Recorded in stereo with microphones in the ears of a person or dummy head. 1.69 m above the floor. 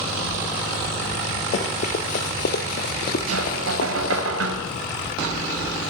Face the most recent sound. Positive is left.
turn(degrees=-80)